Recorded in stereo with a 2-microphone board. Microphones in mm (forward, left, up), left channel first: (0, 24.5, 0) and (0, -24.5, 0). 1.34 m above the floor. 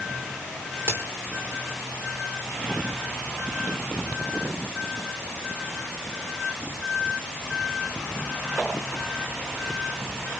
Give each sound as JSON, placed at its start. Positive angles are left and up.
{"t": 0.9, "sound": "a crack", "side_deg": -55, "distance_m": 4.0}